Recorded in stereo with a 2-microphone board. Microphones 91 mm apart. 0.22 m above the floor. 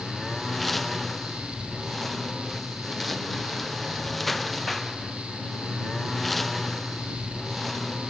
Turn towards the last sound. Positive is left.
turn(degrees=0)  # may be behind; listen again after turning